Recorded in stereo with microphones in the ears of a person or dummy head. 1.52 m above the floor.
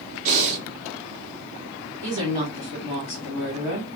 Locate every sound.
0.2 s breathing: 45° right (ahead or behind), 0.8 m
2.0 s a woman speaking: 30° right (ahead or behind), 1.2 m